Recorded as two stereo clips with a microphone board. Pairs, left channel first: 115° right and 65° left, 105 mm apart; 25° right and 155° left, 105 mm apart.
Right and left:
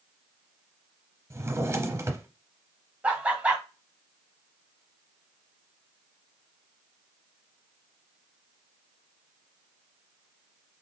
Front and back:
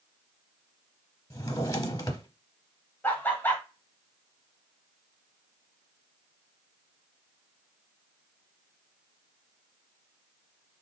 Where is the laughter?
10° left, 1.1 m.